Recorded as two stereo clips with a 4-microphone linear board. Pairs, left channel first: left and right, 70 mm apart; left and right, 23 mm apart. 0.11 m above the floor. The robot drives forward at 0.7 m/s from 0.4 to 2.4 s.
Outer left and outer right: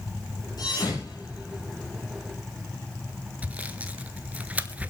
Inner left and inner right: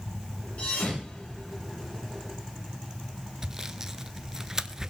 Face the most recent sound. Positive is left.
turn(degrees=-20)  # may be behind; listen again after turning